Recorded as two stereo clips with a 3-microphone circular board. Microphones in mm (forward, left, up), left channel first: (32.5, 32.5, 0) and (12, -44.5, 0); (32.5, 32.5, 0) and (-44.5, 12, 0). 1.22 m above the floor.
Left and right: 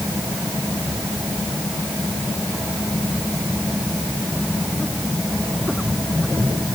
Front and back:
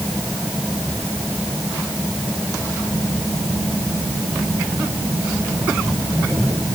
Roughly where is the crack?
No crack in this recording.